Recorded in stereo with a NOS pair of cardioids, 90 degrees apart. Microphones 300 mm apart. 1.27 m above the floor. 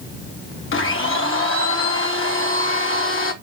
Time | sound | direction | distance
0.7 | a blender | 45° left | 2 m